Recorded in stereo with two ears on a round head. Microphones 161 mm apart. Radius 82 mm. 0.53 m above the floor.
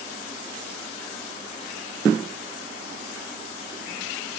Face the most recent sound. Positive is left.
No sound to turn to.